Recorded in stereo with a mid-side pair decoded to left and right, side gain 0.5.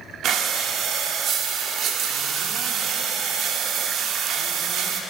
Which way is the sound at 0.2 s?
65° right.